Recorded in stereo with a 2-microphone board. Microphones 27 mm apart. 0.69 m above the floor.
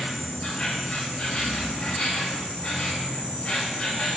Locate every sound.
0.0 s an insect: 40° left (ahead or behind), 2.5 m